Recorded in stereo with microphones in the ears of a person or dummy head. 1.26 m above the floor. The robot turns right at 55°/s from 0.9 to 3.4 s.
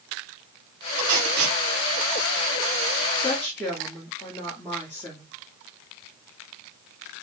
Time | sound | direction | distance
1.0 | tape being pulled | 70° right (ahead or behind) | 2.5 m
3.2 | a woman speaking | centre (ahead or behind) | 1.4 m